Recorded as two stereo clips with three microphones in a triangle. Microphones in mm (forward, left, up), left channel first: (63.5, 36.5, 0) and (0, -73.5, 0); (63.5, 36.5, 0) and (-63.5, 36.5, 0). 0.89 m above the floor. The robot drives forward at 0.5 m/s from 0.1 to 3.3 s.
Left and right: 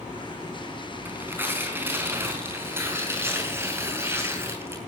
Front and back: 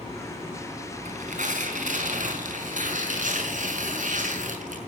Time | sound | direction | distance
1.1 | tearing paper | 165° left | 5 m